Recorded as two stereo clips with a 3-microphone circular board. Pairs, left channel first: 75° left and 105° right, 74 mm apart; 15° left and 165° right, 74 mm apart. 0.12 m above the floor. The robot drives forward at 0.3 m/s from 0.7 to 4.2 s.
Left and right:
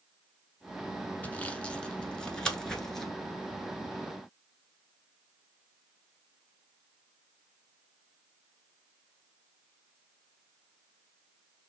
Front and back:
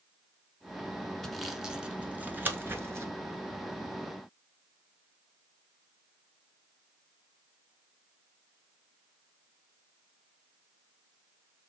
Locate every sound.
1.2 s sawing: 95° left, 0.6 m; by 3.1 s 160° left, 0.8 m